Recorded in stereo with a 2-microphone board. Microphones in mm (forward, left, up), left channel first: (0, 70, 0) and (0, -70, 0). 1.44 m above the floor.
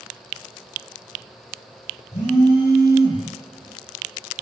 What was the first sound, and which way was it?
A phone buzzing, 60° left (ahead or behind).